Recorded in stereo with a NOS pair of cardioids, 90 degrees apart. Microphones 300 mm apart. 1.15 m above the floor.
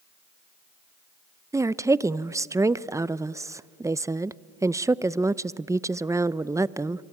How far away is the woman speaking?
About 0.5 m.